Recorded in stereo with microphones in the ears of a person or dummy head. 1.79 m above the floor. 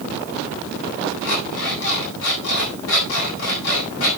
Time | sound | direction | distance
1.2 | an alarm clock | 80° left | 7.5 m